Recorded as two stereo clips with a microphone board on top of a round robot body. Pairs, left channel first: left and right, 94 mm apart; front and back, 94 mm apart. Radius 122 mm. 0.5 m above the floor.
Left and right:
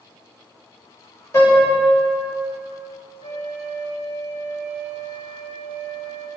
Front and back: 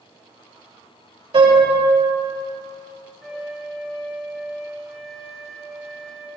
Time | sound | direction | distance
1.3 | a piano | 150° left | 5 m
3.2 | a flute | 85° left | 4 m